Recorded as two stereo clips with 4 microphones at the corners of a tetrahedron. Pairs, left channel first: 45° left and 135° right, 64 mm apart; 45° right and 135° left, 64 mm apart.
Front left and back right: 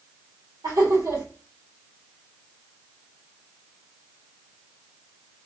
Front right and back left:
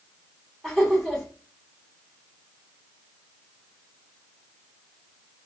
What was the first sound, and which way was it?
Laughter, 135° right.